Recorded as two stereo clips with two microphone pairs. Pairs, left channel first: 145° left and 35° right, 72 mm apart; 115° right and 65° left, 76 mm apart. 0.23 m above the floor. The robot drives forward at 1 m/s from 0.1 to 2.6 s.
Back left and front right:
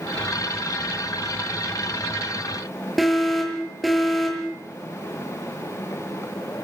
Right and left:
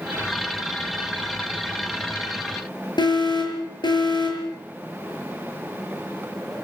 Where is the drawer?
I don't hear a drawer.